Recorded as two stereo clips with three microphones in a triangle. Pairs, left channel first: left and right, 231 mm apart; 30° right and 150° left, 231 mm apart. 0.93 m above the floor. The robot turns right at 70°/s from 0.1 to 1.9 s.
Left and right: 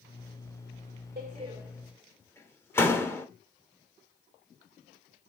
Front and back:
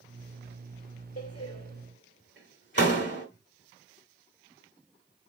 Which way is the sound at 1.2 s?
40° right.